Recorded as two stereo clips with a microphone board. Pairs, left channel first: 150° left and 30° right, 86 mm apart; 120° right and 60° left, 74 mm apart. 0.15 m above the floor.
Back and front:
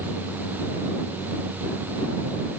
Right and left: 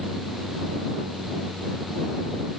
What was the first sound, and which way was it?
Only background noise.